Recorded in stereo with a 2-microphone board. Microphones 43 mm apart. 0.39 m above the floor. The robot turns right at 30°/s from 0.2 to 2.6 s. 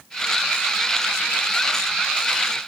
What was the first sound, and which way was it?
Only background noise.